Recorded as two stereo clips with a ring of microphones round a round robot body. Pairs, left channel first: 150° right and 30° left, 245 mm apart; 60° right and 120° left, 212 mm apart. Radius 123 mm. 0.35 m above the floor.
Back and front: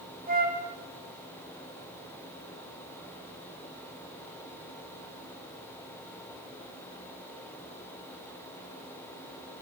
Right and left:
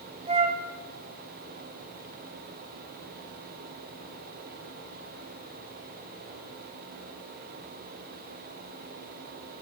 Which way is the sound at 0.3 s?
70° left.